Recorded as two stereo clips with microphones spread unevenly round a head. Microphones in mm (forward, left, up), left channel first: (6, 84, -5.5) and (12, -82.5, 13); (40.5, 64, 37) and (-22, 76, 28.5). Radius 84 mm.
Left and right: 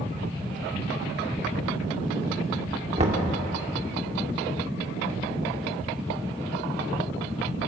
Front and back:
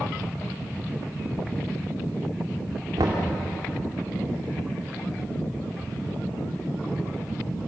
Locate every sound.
3.0 s knocking: 145° right, 2.5 m